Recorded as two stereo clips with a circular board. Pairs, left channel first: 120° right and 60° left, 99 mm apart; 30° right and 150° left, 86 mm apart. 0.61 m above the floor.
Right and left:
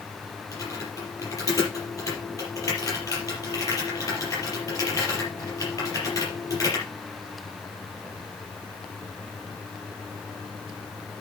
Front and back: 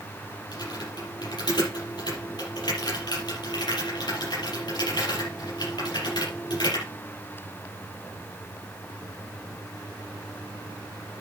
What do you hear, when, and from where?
0.5 s typing on a keyboard: 65° right, 6.5 m